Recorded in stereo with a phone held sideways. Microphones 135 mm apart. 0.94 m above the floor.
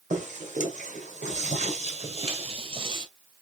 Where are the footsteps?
60° right (ahead or behind), 2 m; by 3.1 s 35° right (ahead or behind), 1.1 m.